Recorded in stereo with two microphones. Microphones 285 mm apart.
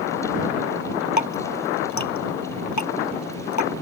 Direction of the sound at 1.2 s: 75° left (ahead or behind).